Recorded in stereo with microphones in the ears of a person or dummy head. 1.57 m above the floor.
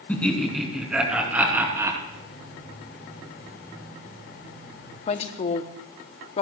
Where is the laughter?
15° left (ahead or behind), 2.5 m; by 2.0 s 10° right (ahead or behind), 3 m.